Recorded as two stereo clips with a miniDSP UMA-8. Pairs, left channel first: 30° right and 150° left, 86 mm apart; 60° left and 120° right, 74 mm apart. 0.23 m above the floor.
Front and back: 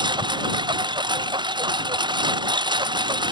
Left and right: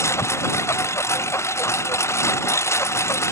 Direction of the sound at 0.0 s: 115° left.